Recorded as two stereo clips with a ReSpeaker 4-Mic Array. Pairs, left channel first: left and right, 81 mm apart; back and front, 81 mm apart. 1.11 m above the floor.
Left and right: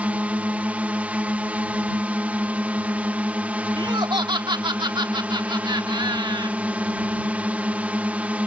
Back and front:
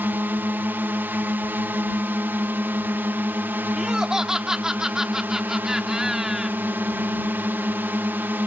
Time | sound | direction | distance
0.0 | a drone | 35° right | ?
3.8 | laughter | 80° right | ?